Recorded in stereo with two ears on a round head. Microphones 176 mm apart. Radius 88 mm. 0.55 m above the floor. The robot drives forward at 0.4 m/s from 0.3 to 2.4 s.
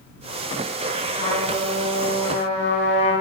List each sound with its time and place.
1.2 s a trumpet: 25° left (ahead or behind), 2 m; by 3.1 s 35° left (ahead or behind), 1.8 m